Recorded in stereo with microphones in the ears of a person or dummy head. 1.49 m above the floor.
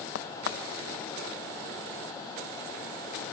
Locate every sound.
0.1 s a crack: 80° left, 1.4 m